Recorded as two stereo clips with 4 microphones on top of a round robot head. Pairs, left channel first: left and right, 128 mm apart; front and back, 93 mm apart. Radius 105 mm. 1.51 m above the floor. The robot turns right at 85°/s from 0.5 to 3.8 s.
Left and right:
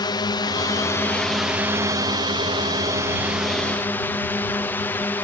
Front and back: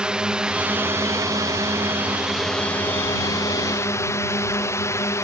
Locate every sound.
0.0 s a drone: 105° left; by 5.2 s 25° left